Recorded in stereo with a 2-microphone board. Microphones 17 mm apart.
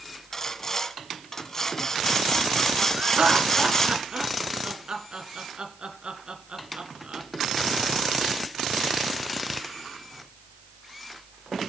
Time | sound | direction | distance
0.3 | sawing | 25° left (ahead or behind) | 1.7 m
3.0 | laughter | 60° right (ahead or behind) | 2.5 m